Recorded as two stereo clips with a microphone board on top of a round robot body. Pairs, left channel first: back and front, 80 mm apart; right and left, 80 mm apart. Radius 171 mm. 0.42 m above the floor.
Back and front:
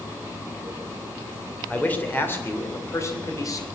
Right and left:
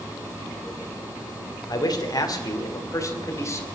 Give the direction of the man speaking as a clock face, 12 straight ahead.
4 o'clock.